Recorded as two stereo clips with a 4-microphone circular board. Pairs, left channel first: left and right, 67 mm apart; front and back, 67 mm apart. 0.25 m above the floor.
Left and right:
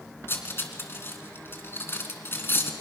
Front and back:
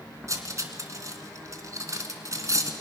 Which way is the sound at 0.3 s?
145° left.